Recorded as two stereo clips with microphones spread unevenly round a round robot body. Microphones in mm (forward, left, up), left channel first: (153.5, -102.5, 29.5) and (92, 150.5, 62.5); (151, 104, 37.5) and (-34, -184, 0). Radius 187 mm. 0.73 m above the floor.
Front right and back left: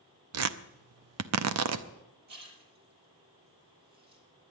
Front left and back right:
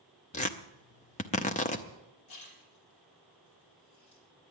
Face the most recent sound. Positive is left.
turn(degrees=90)